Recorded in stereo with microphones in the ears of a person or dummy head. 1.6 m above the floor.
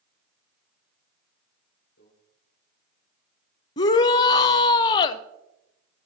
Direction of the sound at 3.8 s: 20° left (ahead or behind).